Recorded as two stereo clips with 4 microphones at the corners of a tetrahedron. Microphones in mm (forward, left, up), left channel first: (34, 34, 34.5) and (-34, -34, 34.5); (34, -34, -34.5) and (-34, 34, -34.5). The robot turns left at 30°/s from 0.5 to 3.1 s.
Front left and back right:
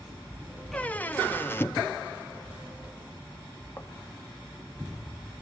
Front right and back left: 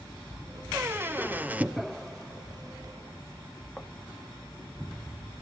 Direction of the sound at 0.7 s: 105° left.